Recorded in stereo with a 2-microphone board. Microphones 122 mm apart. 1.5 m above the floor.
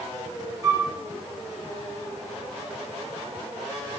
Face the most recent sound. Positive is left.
turn(degrees=-30)  # may be behind; listen again after turning